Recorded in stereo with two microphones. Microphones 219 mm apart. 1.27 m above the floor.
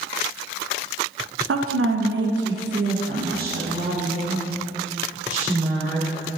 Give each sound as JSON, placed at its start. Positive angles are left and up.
{"t": 1.5, "sound": "a woman speaking", "side_deg": -85, "distance_m": 0.5}